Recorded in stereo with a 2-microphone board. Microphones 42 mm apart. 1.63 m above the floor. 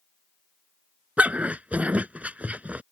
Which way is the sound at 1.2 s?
35° right (ahead or behind).